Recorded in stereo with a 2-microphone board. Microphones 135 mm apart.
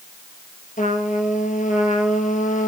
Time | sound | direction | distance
0.8 | a trumpet | 70° left (ahead or behind) | 1.9 m